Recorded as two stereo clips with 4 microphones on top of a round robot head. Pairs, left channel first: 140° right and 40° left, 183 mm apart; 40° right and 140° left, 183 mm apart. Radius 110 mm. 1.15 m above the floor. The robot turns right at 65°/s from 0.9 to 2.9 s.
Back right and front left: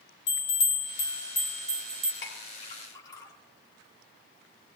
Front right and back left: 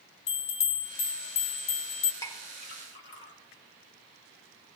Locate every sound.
0.3 s a bell: 95° right, 2.5 m; by 2.1 s 15° right, 2.5 m
2.2 s a clink: 115° right, 3 m; by 3.3 s 70° right, 3 m